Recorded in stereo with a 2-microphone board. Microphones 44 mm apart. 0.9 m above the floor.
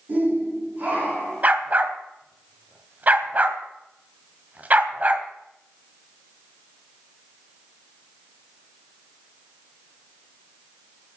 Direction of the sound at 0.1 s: 40° right (ahead or behind).